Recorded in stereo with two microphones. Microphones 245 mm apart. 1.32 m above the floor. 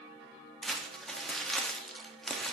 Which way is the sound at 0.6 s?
Centre (ahead or behind).